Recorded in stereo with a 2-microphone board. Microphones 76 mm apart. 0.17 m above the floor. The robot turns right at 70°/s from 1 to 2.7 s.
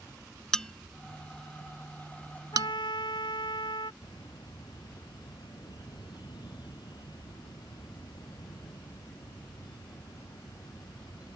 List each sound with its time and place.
0.5 s a bell: 10° left (ahead or behind); by 2.7 s 55° right (ahead or behind)
2.5 s a trumpet: 70° left (ahead or behind); by 3.9 s 85° left
4.0 s a bird: 75° left (ahead or behind)